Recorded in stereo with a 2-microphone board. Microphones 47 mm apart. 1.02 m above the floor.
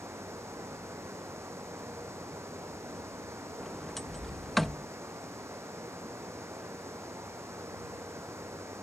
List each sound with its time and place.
0.0 s running water: 70° right (ahead or behind)
3.6 s a sliding door: 5° left (ahead or behind)